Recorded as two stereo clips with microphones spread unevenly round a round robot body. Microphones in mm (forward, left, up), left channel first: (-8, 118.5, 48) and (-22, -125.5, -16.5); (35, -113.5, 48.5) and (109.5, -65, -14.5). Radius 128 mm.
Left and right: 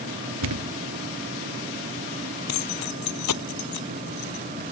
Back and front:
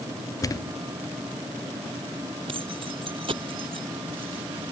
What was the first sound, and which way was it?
A thud, 105° right.